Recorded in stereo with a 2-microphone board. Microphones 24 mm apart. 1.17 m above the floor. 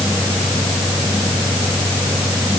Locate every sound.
Only background noise.